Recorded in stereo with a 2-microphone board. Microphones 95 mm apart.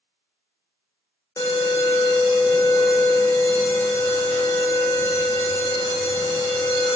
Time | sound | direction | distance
1.4 | an alarm | 30° left (ahead or behind) | 2.5 m